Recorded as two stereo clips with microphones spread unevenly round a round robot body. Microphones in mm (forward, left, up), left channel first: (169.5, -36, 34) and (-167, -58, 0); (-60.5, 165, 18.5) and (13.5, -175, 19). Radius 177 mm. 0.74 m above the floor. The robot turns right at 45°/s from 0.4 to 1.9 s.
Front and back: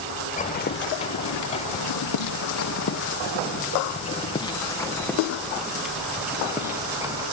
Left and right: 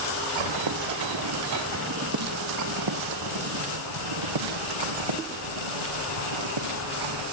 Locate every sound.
0.4 s footsteps: 60° right, 2 m; by 7.2 s 95° right, 3.5 m